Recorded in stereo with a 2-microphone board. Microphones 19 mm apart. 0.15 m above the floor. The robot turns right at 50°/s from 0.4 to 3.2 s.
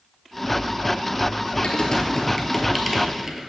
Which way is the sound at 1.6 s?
55° left (ahead or behind).